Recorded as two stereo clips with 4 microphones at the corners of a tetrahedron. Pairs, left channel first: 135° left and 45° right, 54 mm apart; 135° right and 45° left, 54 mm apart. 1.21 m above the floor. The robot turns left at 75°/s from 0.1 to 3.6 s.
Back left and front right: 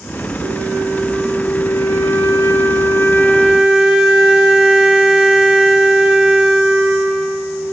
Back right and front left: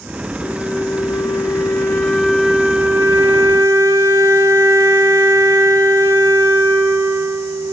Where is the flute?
85° right, 2.5 m; by 7.7 s 40° left, 2.5 m.